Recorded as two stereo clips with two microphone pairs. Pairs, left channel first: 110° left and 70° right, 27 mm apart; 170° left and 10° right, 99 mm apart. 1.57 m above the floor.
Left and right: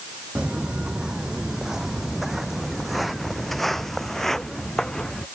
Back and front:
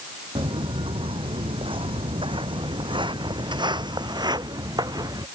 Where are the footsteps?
30° right; by 5.2 s 35° left.